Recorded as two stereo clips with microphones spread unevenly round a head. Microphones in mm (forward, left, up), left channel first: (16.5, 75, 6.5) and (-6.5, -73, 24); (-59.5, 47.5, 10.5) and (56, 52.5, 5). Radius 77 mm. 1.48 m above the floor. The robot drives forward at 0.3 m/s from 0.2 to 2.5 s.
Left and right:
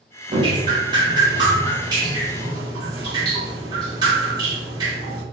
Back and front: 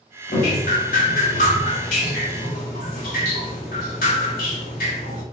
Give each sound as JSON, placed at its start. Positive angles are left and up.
{"t": 0.3, "sound": "dripping", "azimuth_deg": -160, "distance_m": 2.5}